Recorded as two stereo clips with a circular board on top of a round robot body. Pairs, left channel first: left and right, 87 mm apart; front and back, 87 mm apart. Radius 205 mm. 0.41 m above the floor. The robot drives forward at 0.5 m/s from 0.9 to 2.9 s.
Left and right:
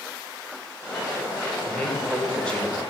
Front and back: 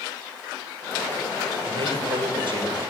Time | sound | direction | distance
1.7 | a man speaking | 170° left | 4 m